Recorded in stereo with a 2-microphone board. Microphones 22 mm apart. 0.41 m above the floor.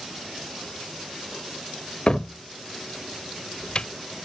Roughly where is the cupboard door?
Left.